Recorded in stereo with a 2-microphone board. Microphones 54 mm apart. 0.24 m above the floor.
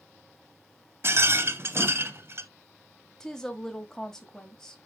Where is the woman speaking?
10° left (ahead or behind), 1.2 m.